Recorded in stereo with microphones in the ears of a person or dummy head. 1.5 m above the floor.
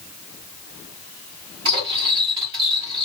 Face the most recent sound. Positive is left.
turn(degrees=-30)  # may be behind; listen again after turning